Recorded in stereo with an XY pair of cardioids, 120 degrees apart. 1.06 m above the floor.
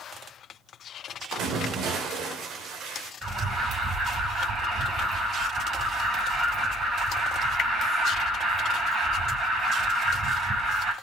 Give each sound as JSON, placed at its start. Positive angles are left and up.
{"t": 1.3, "sound": "a splash", "azimuth_deg": -70, "distance_m": 3.0}
{"t": 3.2, "sound": "an alarm", "azimuth_deg": -45, "distance_m": 4.5}